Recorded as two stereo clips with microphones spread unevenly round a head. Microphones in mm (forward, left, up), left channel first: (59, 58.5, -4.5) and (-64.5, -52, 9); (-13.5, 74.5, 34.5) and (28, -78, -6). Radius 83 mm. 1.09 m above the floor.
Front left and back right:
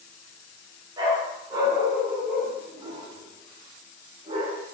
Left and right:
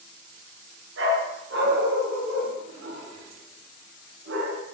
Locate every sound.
1.0 s a dog barking: 70° right, 6.5 m; by 4.6 s 80° right, 4.5 m